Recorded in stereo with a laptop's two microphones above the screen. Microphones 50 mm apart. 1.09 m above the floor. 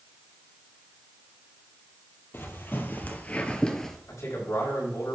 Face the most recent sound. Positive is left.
turn(degrees=70)  # may be behind; listen again after turning